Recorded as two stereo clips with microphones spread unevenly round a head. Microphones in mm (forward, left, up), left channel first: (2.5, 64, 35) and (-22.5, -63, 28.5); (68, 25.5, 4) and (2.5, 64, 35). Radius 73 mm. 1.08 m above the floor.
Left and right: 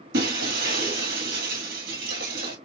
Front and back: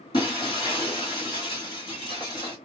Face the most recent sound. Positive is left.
turn(degrees=-105)